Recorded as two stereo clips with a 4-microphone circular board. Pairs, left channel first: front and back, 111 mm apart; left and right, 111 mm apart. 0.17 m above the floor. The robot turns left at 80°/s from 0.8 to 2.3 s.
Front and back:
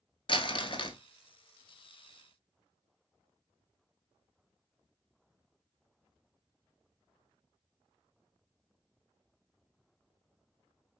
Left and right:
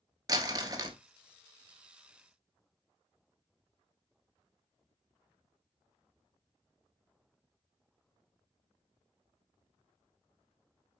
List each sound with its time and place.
0.3 s crumpling: 35° right, 0.6 m; by 1.0 s 50° right, 0.6 m